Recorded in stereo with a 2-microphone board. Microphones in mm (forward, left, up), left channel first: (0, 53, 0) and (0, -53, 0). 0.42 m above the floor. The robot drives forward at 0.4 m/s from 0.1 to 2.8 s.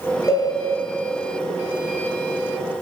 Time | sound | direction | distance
0.3 | a cowbell | 30° left (ahead or behind) | 0.6 m